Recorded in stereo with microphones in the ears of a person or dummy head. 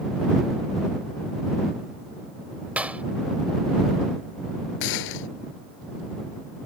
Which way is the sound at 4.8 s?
65° left (ahead or behind).